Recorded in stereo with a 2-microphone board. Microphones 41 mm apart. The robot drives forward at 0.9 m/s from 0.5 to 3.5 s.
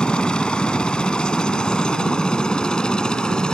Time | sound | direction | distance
0.0 | a helicopter | 25° left (ahead or behind) | ?